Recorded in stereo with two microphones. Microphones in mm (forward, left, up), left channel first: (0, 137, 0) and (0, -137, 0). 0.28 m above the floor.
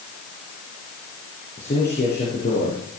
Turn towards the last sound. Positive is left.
turn(degrees=40)  # may be behind; listen again after turning